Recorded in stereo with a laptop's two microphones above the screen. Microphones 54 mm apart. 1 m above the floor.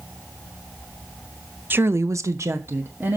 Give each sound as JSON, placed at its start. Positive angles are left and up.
{"t": 1.7, "sound": "a woman speaking", "side_deg": -40, "distance_m": 0.9}